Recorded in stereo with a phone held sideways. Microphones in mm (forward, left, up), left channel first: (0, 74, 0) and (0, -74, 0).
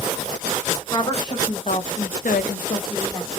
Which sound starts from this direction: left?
A woman speaking, at 0.9 s.